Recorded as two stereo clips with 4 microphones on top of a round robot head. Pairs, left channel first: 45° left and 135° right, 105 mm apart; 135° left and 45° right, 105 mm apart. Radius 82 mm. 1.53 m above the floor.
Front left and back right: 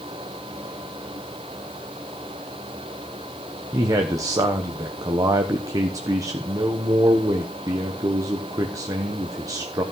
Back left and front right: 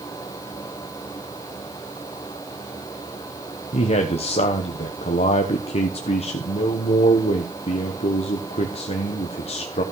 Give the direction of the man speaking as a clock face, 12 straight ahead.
7 o'clock.